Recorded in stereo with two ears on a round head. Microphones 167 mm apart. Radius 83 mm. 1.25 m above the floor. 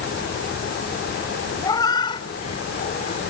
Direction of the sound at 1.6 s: 20° left (ahead or behind).